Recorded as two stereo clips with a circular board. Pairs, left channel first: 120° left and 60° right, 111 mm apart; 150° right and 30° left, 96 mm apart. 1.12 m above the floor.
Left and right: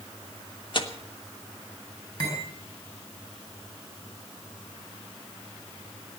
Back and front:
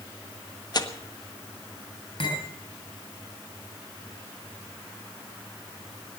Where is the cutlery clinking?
Straight behind, 7.5 m.